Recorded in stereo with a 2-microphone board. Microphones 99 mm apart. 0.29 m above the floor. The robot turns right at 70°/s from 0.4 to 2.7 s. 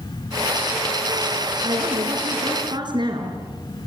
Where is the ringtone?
I don't hear a ringtone.